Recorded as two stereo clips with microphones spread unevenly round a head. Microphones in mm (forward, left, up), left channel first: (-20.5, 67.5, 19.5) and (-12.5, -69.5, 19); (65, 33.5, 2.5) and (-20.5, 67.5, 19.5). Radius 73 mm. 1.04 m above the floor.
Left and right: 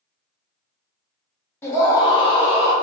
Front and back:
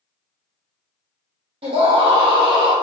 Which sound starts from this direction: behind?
A scream, at 1.6 s.